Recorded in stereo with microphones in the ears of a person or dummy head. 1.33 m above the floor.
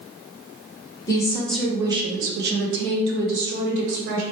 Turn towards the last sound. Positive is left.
turn(degrees=-65)  # may be behind; listen again after turning